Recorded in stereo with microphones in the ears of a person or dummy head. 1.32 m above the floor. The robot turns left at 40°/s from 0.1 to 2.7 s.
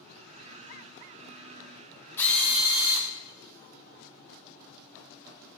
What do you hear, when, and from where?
2.2 s a drill: 10° left (ahead or behind), 0.5 m; by 3.1 s 5° right (ahead or behind), 0.5 m